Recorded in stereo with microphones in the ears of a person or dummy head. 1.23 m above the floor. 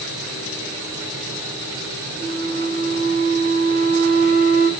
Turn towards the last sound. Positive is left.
turn(degrees=-10)  # may be behind; listen again after turning